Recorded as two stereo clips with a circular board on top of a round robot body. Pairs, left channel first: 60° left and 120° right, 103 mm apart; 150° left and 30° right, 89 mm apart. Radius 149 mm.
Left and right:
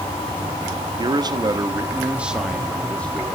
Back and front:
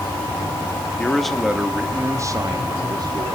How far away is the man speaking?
About 1.8 m.